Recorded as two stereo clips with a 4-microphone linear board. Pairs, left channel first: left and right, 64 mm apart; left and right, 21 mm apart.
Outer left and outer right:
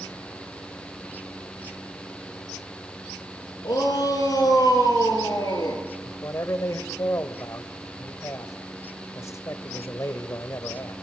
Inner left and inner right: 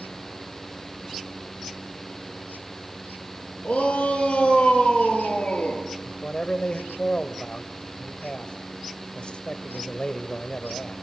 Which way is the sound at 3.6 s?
75° left (ahead or behind).